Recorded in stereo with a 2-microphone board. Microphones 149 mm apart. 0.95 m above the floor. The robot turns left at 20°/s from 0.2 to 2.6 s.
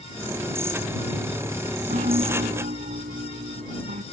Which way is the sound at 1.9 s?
50° right (ahead or behind).